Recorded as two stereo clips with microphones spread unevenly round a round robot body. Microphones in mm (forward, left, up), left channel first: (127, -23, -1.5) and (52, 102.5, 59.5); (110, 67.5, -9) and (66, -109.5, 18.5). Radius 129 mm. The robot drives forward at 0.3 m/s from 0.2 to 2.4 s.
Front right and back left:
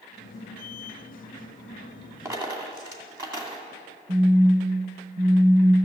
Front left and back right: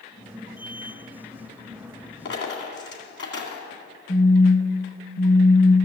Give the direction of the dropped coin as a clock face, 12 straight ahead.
10 o'clock.